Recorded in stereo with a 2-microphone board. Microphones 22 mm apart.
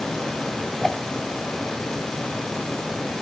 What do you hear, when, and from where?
0.8 s a whoosh: 15° left (ahead or behind), 3 m